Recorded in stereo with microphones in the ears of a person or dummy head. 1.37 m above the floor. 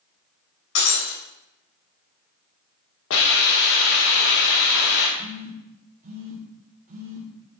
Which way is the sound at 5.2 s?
40° right (ahead or behind).